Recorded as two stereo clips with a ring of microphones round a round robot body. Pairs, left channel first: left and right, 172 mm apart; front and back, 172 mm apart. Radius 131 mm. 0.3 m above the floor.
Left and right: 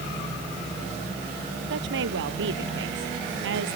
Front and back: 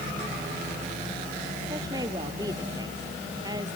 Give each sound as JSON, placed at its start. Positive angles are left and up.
{"t": 1.7, "sound": "a woman speaking", "azimuth_deg": -105}